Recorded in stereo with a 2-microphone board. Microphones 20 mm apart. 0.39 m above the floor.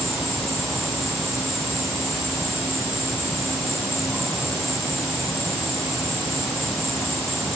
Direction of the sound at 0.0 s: 10° left (ahead or behind).